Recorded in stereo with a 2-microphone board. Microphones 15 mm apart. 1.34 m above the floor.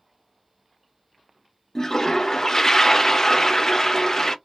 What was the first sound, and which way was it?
A toilet flushing, 40° left (ahead or behind).